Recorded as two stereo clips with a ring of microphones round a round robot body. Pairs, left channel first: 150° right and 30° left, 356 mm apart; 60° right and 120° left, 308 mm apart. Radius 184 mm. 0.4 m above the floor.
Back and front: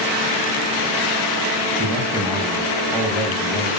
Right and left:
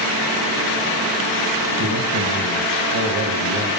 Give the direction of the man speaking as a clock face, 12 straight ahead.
8 o'clock.